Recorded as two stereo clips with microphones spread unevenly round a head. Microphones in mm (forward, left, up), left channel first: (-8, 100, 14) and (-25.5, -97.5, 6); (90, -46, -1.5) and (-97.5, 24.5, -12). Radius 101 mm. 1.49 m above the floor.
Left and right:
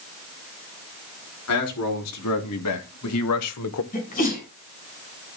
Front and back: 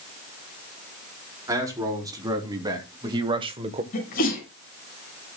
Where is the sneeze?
30° left, 6 m.